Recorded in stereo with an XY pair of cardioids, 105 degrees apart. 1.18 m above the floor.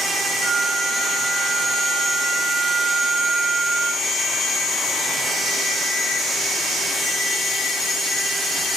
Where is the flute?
45° right.